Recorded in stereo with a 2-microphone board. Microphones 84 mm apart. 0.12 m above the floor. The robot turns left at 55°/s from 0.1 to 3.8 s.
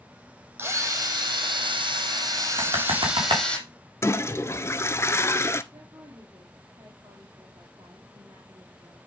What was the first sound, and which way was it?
A drill, 25° right.